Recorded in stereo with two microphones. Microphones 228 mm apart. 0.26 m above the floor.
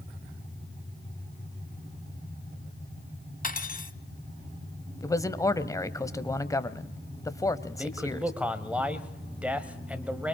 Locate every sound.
3.4 s cutlery clinking: 40° left (ahead or behind), 0.9 m
5.0 s a man speaking: 15° left (ahead or behind), 1.1 m
7.8 s a man speaking: 5° right (ahead or behind), 1.5 m